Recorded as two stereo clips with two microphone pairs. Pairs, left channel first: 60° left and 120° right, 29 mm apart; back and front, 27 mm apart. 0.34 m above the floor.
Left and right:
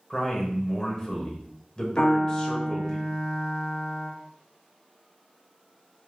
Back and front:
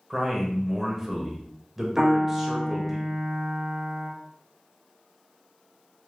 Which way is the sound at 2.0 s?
55° left.